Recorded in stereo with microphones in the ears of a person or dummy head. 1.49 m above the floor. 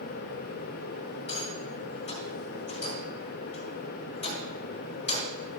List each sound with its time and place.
1.3 s a rattle: 35° left (ahead or behind), 3.5 m